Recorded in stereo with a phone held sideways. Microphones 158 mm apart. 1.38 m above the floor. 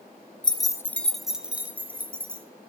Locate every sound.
0.4 s keys jangling: 30° left (ahead or behind), 0.5 m; by 2.5 s 15° right (ahead or behind), 1.6 m